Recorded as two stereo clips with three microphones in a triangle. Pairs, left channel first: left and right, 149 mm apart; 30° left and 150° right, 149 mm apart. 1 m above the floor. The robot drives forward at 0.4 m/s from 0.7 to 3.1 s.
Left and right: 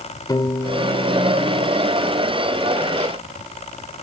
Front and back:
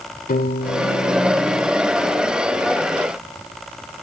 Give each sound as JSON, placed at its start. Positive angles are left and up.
{"t": 0.3, "sound": "a piano", "azimuth_deg": 30, "distance_m": 1.4}